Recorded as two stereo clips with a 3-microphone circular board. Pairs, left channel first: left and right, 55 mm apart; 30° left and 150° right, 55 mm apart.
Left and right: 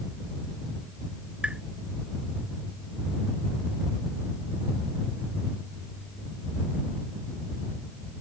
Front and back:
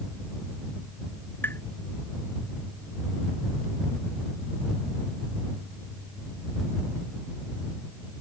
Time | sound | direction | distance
1.4 | tapping | 20° right | ?